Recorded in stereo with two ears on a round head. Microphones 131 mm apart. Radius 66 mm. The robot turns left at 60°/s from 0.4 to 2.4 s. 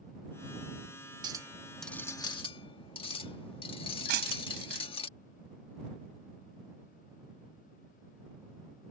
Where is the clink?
150° right; by 5.1 s 140° left.